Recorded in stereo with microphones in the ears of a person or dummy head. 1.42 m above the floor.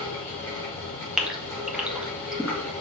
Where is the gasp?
5° right (ahead or behind), 1.4 m.